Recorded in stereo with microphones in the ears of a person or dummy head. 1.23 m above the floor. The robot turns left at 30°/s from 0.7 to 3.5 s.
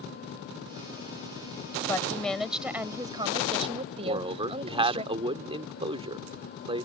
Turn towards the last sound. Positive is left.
turn(degrees=-30)  # may be behind; listen again after turning